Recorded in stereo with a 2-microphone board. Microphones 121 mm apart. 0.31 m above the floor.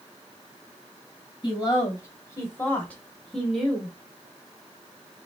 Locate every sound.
1.4 s a woman speaking: 35° left (ahead or behind), 1.8 m; by 3.9 s 10° right (ahead or behind), 1.4 m